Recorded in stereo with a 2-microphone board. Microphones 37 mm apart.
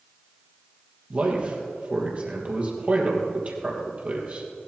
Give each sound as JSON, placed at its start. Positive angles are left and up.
{"t": 1.1, "sound": "a man speaking", "side_deg": -40, "distance_m": 3.5}